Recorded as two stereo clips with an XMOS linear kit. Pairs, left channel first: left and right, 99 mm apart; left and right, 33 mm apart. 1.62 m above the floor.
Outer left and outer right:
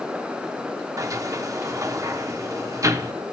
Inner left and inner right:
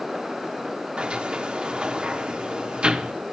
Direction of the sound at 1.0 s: 35° right (ahead or behind).